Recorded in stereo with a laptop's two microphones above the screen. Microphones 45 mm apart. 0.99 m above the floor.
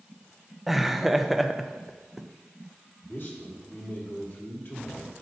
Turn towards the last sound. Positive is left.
turn(degrees=50)  # may be behind; listen again after turning